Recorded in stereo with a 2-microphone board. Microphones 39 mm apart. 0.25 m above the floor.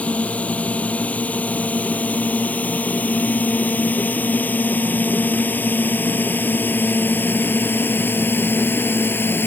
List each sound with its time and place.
0.0 s a drone: 35° left (ahead or behind); by 9.5 s 70° left (ahead or behind)